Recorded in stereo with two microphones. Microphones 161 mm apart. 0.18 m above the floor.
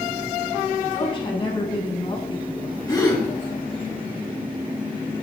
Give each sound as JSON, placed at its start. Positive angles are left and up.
{"t": 0.9, "sound": "a woman speaking", "side_deg": 30, "distance_m": 1.6}
{"t": 2.9, "sound": "a gasp", "side_deg": 20, "distance_m": 1.6}